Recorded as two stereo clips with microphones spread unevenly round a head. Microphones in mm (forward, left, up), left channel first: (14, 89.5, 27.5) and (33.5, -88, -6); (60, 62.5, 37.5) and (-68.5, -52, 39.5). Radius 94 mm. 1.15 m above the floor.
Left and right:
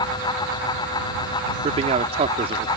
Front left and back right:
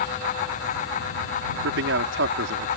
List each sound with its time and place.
1.6 s a man speaking: 145° right